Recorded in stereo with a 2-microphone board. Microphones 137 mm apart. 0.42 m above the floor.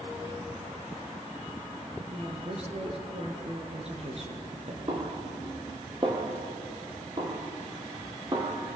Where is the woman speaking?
50° right (ahead or behind), 5.5 m.